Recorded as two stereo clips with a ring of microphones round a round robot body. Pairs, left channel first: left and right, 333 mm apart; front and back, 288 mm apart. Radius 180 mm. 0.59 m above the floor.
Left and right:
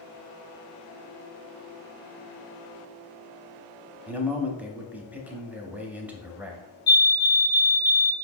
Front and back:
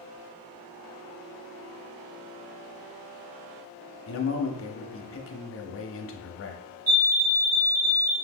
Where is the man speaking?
5° right, 0.7 m.